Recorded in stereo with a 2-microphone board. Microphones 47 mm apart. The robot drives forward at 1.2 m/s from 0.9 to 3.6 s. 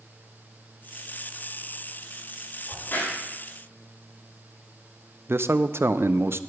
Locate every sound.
2.7 s a crack: 55° left (ahead or behind), 5 m; by 3.2 s 50° left (ahead or behind), 5 m
5.3 s a man speaking: 60° right (ahead or behind), 0.5 m